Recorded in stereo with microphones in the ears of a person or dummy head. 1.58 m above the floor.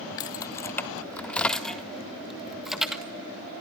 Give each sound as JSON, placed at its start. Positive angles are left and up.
{"t": 0.2, "sound": "keys jangling", "side_deg": 25, "distance_m": 0.5}